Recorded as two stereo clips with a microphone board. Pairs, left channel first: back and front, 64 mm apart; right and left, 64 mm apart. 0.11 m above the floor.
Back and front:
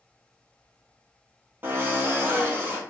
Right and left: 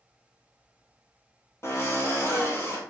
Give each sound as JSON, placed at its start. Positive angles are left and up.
{"t": 1.6, "sound": "a drill", "azimuth_deg": -55, "distance_m": 1.1}